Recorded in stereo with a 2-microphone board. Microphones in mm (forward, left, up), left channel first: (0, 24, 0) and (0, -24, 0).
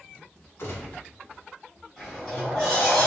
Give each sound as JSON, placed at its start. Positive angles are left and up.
{"t": 0.6, "sound": "a gunshot", "side_deg": 70, "distance_m": 1.1}
{"t": 2.0, "sound": "a sliding door", "side_deg": 10, "distance_m": 1.8}